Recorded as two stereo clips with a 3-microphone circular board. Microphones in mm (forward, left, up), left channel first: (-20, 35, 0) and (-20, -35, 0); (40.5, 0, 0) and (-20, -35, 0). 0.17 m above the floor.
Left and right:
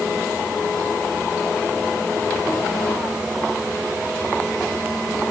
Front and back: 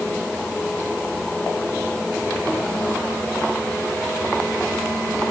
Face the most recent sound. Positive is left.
No sound to turn to.